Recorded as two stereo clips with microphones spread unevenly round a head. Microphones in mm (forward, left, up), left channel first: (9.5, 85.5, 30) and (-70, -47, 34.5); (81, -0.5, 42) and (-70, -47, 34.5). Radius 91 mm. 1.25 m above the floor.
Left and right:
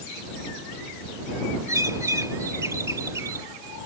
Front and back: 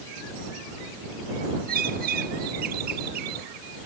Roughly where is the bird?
Behind.